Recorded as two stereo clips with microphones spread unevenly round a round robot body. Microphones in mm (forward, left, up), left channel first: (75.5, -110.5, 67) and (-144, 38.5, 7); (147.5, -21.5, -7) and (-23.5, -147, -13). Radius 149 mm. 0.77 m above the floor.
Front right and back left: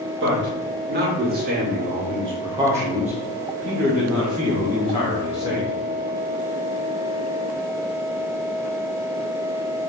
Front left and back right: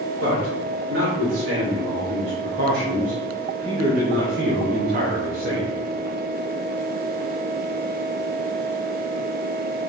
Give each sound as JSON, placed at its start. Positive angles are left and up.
{"t": 0.2, "sound": "a man speaking", "azimuth_deg": 180, "distance_m": 2.5}